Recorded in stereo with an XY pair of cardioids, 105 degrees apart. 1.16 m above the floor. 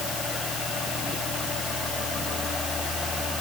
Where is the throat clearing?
I don't hear throat clearing.